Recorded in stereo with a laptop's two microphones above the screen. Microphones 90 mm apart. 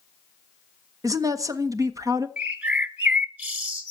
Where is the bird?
20° right (ahead or behind), 1.2 m.